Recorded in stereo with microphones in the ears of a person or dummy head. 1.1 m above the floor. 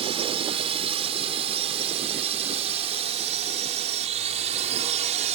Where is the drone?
35° right (ahead or behind); by 5.4 s 40° right (ahead or behind).